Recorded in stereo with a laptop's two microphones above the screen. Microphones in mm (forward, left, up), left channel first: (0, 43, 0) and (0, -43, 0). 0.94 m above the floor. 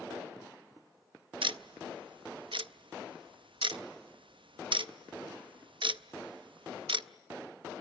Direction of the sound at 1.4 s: 75° right (ahead or behind).